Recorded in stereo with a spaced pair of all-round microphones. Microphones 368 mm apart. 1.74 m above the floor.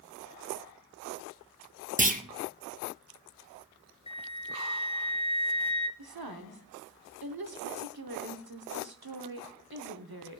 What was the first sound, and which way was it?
A clunk, 20° right (ahead or behind).